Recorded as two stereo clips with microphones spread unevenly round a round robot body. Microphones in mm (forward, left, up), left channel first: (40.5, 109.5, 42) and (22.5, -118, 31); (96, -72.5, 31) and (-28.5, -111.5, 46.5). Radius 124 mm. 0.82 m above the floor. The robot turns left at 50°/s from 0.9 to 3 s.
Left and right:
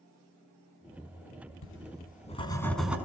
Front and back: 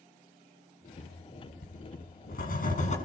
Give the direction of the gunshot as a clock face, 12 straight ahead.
No gunshot in this recording.